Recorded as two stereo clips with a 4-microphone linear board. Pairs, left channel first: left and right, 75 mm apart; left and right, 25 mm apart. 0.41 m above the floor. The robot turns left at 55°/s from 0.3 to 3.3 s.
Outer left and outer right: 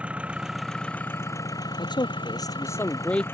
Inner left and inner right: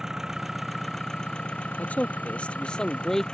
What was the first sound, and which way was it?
An engine running, 165° right.